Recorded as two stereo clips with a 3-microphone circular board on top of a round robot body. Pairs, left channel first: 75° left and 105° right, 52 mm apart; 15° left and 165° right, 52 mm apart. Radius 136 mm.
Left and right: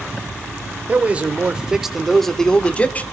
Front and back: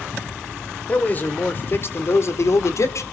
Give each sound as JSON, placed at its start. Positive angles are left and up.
{"t": 0.9, "sound": "a man speaking", "azimuth_deg": -45, "distance_m": 3.0}